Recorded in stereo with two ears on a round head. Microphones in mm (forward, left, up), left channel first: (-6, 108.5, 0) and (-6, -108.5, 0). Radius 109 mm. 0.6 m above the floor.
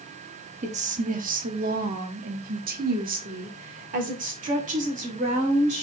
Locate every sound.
0.6 s a woman speaking: 30° right (ahead or behind), 1.0 m